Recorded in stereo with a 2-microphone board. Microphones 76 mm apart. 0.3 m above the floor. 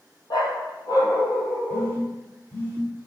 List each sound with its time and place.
0.3 s a dog barking: 60° left (ahead or behind), 3 m; by 2.0 s 35° left (ahead or behind), 3 m
1.7 s a phone buzzing: 30° left (ahead or behind), 2.5 m